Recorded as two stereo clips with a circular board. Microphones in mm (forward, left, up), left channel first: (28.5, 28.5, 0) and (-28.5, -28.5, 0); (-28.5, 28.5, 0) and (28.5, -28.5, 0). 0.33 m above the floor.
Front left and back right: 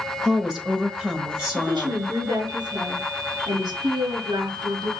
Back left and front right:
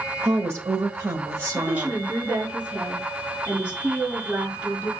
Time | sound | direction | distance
0.2 | a woman speaking | 65° right | 1.2 m
1.6 | a woman speaking | 115° right | 4.5 m